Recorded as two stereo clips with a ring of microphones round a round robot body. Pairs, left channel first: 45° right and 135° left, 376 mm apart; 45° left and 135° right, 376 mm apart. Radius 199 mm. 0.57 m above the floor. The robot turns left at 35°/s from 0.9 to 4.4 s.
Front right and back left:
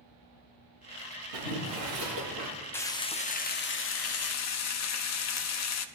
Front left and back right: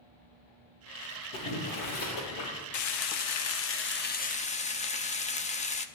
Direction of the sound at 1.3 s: 120° left.